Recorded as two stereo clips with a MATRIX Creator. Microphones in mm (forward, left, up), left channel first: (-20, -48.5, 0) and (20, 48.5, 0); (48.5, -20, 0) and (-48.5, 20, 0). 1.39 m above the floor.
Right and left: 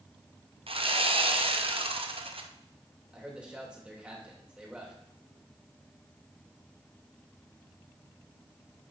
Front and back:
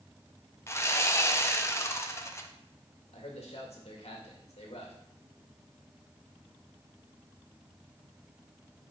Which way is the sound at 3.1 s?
10° right.